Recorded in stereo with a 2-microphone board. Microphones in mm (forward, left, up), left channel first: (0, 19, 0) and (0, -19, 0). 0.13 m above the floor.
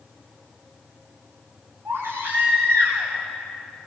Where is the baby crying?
85° right, 10 m.